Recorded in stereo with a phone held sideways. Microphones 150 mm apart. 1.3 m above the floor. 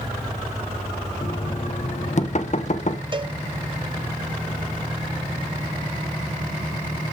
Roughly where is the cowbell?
Right.